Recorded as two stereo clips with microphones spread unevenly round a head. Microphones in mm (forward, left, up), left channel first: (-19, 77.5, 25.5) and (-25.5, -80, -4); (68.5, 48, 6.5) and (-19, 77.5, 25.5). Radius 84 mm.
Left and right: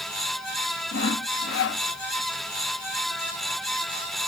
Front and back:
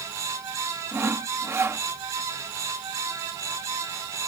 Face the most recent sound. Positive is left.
turn(degrees=100)